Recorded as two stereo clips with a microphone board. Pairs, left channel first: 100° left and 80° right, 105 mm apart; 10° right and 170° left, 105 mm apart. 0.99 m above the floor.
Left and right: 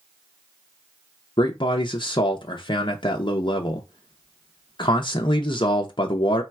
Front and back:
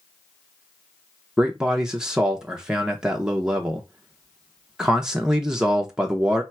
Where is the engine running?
No engine running in this recording.